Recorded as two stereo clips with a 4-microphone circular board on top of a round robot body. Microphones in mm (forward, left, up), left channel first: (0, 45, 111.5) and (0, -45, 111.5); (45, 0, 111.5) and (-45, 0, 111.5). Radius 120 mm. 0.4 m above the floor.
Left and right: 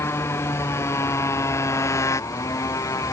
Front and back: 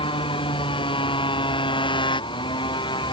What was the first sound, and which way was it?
A motorcycle, 30° left.